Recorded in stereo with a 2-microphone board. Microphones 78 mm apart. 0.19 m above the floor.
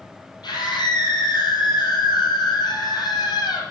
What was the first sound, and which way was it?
A scream, 75° left (ahead or behind).